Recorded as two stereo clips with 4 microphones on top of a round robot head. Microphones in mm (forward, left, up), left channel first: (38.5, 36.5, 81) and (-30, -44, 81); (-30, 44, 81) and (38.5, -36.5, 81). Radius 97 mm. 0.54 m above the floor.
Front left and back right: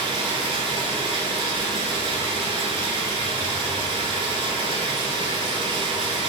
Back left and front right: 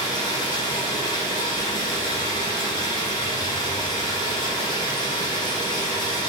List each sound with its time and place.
0.0 s running water: 175° right, 1.3 m